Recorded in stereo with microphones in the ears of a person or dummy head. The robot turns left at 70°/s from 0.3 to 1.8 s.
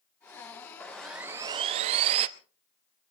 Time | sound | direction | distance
0.8 | sawing | 15° left | 0.8 m